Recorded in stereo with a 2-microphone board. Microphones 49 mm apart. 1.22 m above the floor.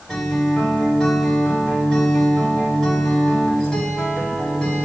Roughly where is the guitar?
Centre.